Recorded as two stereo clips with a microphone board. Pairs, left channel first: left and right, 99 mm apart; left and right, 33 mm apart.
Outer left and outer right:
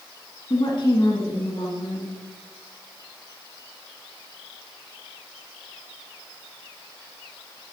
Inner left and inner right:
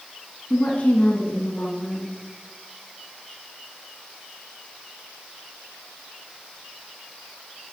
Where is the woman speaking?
50° left (ahead or behind), 1.5 m.